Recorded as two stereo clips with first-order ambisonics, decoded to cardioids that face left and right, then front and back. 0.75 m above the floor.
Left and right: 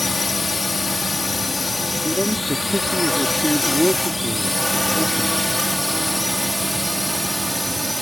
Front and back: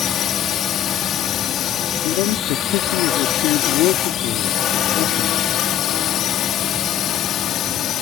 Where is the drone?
20° left; by 8.0 s straight ahead.